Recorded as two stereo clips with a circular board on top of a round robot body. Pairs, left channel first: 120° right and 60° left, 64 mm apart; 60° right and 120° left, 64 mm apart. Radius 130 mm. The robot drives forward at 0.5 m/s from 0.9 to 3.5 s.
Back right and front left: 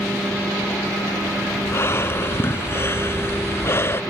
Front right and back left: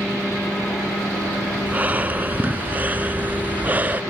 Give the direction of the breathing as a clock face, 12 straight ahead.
6 o'clock.